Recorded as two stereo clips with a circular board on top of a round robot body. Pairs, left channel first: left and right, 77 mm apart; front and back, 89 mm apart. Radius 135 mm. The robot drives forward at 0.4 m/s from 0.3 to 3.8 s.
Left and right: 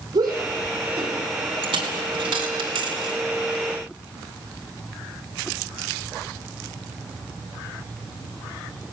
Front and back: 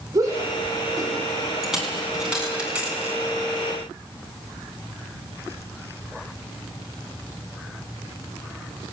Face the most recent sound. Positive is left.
turn(degrees=-110)